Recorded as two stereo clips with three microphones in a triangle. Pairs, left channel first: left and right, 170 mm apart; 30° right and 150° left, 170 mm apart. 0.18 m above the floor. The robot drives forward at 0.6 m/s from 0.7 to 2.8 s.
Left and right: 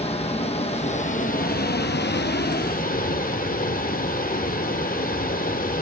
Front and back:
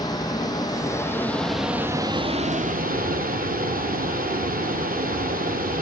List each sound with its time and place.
0.0 s running water: 35° left, 1.1 m; by 5.8 s 120° left, 0.8 m